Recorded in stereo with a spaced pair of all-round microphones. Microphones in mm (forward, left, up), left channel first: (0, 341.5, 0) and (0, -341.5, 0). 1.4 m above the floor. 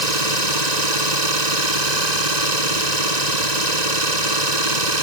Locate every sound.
0.0 s an engine running: 75° right (ahead or behind)